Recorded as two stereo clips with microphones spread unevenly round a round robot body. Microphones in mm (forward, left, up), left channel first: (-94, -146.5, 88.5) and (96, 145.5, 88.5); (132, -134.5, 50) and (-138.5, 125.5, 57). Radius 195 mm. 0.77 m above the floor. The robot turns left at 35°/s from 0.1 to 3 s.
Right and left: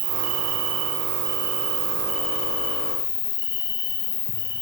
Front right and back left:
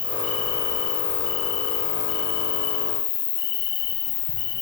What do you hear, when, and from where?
0.0 s an insect: 40° left, 7 m; by 4.6 s 65° right, 7 m